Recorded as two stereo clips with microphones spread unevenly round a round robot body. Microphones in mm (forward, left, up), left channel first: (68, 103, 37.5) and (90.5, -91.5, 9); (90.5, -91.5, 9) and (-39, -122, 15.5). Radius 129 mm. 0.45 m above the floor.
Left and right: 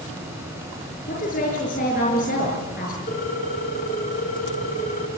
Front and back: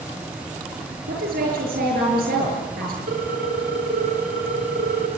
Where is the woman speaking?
155° left, 6.5 m.